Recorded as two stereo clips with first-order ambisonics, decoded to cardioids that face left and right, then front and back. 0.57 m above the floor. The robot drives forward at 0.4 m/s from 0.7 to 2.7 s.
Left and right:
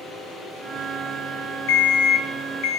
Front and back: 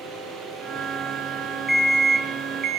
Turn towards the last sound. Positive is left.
turn(degrees=125)